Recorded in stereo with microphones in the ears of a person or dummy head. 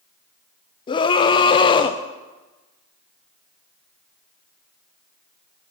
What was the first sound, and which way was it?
A scream, 25° left (ahead or behind).